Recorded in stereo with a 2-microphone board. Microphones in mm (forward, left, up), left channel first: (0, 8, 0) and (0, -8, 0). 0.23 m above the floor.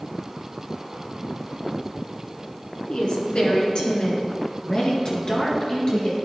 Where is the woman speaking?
65° left (ahead or behind), 2.5 m; by 6.1 s 40° left (ahead or behind), 3.5 m.